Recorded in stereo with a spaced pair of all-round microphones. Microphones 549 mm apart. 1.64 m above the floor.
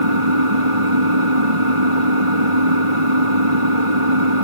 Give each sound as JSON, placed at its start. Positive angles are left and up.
{"t": 0.0, "sound": "an engine running", "side_deg": -70}